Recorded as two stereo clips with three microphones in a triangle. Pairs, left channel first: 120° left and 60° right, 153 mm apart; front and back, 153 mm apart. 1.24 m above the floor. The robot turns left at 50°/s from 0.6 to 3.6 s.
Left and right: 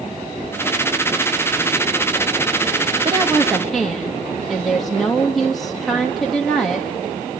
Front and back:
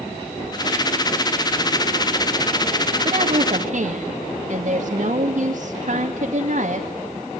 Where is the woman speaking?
125° right, 2.5 m; by 6.9 s 150° right, 2.5 m.